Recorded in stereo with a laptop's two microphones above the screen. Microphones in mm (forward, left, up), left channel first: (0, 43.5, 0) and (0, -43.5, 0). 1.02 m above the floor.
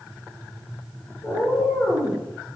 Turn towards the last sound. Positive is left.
turn(degrees=30)  # may be behind; listen again after turning